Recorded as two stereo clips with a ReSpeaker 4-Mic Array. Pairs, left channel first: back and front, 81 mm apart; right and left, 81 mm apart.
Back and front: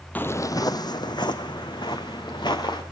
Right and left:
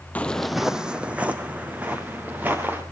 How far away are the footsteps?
About 0.7 m.